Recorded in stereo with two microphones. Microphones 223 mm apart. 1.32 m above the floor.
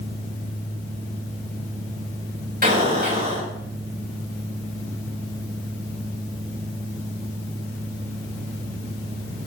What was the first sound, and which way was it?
An explosion, 40° right (ahead or behind).